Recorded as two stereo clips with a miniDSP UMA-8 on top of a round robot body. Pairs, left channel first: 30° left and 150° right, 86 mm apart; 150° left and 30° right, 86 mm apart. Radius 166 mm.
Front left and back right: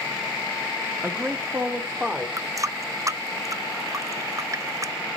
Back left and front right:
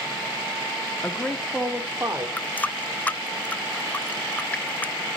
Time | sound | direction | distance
1.0 | a man speaking | 170° right | 1.2 m
2.4 | a running tap | 150° right | 0.6 m